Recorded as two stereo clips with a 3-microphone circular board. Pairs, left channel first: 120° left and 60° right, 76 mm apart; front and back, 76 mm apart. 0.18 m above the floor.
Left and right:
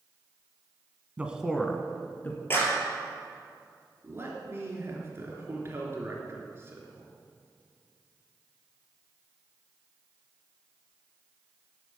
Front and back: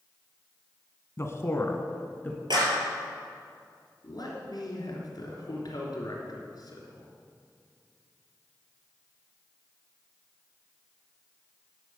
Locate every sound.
1.2 s a man speaking: straight ahead, 1.3 m; by 2.4 s 65° left, 1.9 m
2.5 s a clap: straight behind, 3 m
4.0 s a man speaking: 10° right, 3 m